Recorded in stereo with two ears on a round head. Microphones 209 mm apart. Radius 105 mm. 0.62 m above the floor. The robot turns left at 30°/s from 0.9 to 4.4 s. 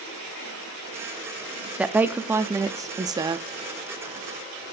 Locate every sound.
1.8 s a woman speaking: 5° right (ahead or behind), 0.5 m; by 3.5 s 20° right (ahead or behind), 0.5 m